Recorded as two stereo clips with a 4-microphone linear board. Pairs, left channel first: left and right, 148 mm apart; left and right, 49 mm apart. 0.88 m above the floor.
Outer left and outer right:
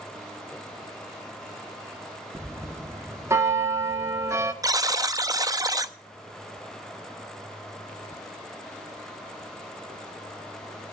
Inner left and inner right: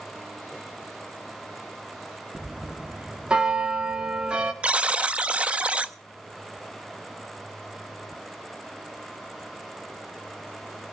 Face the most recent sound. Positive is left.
turn(degrees=-25)  # may be behind; listen again after turning